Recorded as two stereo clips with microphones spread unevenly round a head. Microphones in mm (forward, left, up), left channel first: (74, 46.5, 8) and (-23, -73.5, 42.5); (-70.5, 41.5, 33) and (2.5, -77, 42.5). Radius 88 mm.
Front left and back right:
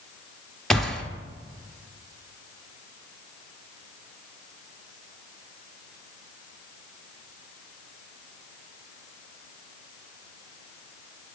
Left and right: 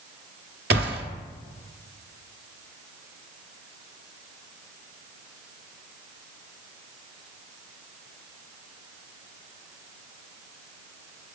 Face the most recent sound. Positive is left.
turn(degrees=-45)